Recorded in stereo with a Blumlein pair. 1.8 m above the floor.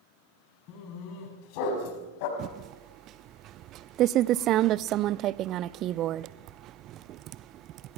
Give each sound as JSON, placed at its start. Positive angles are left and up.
{"t": 0.7, "sound": "a dog barking", "azimuth_deg": 40, "distance_m": 6.0}
{"t": 2.4, "sound": "typing on a keyboard", "azimuth_deg": -35, "distance_m": 0.6}